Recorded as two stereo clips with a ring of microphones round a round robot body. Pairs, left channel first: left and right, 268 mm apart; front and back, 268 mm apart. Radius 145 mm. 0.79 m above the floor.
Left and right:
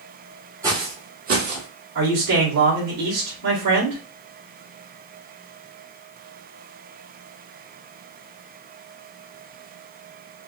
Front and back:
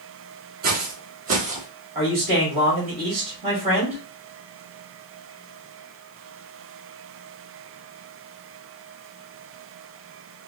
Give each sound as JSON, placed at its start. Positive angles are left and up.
{"t": 0.6, "sound": "footsteps", "azimuth_deg": -160, "distance_m": 0.9}
{"t": 1.9, "sound": "a man speaking", "azimuth_deg": -110, "distance_m": 2.0}